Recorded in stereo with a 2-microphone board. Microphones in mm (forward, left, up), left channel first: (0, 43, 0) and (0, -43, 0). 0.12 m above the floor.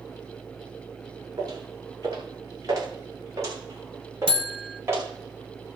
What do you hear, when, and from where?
1.4 s footsteps: 45° right (ahead or behind), 9 m; by 5.1 s 30° right (ahead or behind), 9 m
4.3 s a buzzer: 70° right (ahead or behind), 0.8 m